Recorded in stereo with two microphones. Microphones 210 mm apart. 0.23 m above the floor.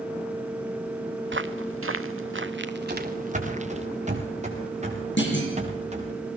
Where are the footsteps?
60° right (ahead or behind), 1.2 m; by 3.9 s 30° right (ahead or behind), 1.9 m.